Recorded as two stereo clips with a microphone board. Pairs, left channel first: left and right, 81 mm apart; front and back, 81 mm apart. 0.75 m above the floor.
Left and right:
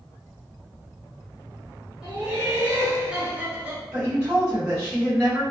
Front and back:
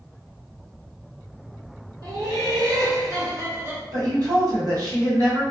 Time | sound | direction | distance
2.0 | laughter | 170° right | 1.5 m
3.9 | a woman speaking | 160° right | 1.6 m